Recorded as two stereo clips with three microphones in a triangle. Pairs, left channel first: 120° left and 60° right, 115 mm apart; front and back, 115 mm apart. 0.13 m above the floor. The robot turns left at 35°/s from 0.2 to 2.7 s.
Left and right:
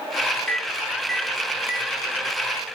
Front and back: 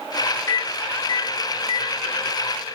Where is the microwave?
50° left, 2.5 m; by 2.0 s straight ahead, 2.5 m.